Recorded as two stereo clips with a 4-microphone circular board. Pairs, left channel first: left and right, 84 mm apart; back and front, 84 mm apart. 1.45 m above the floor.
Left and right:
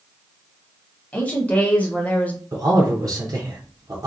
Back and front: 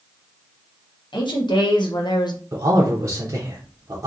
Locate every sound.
1.1 s a woman speaking: 165° left, 1.3 m; by 2.4 s 160° left, 0.6 m
2.5 s a man speaking: 45° right, 0.7 m